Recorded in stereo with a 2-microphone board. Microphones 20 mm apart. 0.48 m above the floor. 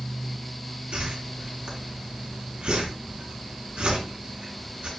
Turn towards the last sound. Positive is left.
turn(degrees=-70)  # may be behind; listen again after turning